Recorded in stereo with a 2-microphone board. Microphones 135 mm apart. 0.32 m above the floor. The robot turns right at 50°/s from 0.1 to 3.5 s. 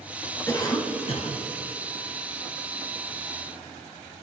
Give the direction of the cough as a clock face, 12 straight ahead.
11 o'clock.